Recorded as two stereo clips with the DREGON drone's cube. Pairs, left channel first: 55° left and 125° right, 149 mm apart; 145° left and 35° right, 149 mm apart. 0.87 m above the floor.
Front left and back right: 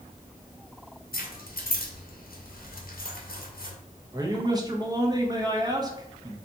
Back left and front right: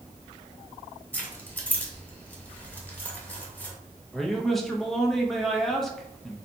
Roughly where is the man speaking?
Behind right.